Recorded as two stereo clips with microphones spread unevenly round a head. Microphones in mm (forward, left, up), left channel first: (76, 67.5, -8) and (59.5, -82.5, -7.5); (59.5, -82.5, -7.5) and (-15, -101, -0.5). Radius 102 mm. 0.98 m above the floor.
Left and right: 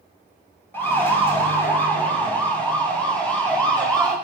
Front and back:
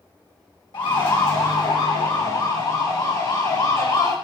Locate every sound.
0.7 s a siren: 10° left, 7 m; by 4.1 s straight ahead, 9 m